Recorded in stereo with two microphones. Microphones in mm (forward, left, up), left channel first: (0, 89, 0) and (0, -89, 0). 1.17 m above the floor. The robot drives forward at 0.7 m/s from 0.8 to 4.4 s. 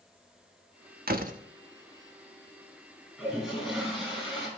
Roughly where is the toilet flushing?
Centre.